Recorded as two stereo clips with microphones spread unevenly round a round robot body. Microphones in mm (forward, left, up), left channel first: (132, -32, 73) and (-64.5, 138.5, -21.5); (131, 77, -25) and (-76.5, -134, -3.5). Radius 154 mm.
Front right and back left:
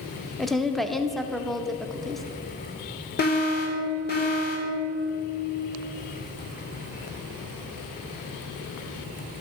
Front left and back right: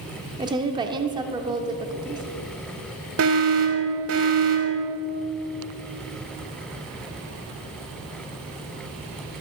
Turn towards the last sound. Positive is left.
turn(degrees=-105)